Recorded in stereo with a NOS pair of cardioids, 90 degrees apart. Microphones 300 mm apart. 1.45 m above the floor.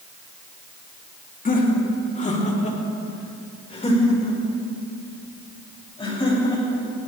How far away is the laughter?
About 2.5 m.